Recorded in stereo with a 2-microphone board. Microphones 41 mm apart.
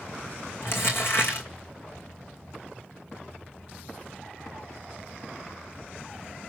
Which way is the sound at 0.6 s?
60° left (ahead or behind).